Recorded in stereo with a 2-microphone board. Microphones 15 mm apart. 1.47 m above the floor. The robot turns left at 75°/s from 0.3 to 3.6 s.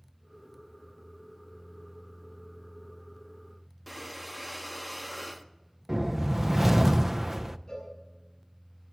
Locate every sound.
3.9 s breathing: 10° right (ahead or behind), 0.8 m
5.9 s a whoosh: 30° right (ahead or behind), 0.5 m
7.7 s a cowbell: 45° left (ahead or behind), 8 m